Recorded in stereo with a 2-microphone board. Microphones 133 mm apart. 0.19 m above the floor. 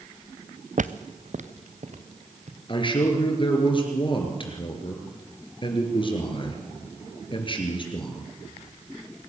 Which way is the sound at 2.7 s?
40° left (ahead or behind).